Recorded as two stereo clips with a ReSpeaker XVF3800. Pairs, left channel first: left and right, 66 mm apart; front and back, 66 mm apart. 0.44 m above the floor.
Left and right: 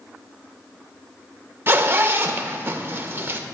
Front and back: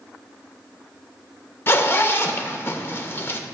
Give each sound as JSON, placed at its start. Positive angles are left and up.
{"t": 1.7, "sound": "a zipper", "azimuth_deg": -45, "distance_m": 0.6}